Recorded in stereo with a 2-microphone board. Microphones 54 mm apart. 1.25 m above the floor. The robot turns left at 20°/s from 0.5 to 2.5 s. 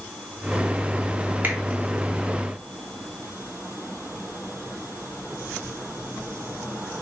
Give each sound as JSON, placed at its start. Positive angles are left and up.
{"t": 1.4, "sound": "a finger snap", "side_deg": -35, "distance_m": 2.5}